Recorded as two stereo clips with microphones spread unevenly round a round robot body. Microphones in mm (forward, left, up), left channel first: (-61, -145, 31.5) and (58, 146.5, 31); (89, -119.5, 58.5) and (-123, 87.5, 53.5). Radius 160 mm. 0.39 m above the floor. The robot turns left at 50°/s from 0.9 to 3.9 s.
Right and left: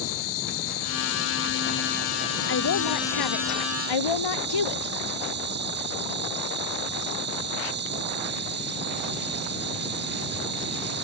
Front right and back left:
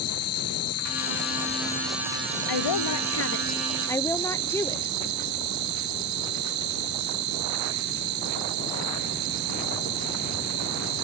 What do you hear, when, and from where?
0.0 s an insect: 85° right; by 11.1 s 125° left
2.5 s a woman speaking: 55° right; by 4.9 s 125° right